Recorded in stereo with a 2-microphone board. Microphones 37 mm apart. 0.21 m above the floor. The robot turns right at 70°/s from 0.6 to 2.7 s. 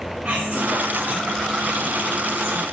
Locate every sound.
0.2 s whispering: 145° right, 3 m; by 2.6 s 5° right, 3 m